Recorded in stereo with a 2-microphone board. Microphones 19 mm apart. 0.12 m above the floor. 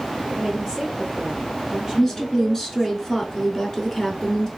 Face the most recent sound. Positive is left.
turn(degrees=20)  # may be behind; listen again after turning